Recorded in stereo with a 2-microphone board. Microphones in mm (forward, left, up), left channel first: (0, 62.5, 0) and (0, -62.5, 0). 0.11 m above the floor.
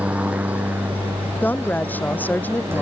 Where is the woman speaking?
15° left (ahead or behind).